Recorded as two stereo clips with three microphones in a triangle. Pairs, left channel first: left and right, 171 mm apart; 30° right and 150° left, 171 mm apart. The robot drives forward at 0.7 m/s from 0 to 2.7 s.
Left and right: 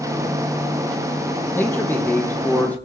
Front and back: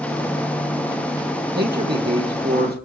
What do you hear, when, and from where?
1.6 s a man speaking: 165° left, 3 m; by 2.8 s 170° left, 3.5 m